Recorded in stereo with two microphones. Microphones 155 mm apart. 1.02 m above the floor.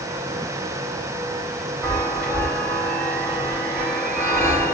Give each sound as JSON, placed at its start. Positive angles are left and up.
{"t": 1.8, "sound": "a chime", "side_deg": 10, "distance_m": 3.0}